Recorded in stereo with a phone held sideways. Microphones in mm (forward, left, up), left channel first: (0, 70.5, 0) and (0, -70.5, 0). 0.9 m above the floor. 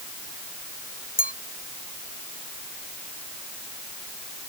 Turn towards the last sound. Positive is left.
turn(degrees=85)